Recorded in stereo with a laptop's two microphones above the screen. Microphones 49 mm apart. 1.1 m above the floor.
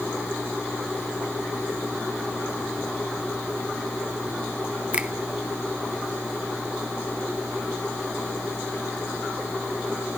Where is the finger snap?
20° right (ahead or behind), 0.7 m.